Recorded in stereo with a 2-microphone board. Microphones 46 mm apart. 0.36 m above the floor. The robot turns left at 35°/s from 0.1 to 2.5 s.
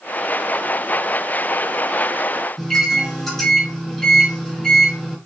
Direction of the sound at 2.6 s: 5° left (ahead or behind).